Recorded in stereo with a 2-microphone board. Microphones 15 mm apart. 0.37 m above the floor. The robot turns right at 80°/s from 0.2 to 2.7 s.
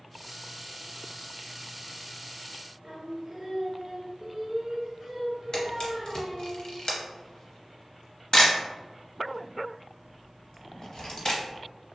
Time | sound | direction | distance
2.8 | singing | 25° right (ahead or behind) | 0.6 m
5.5 | a camera shutter | 50° left (ahead or behind) | 0.7 m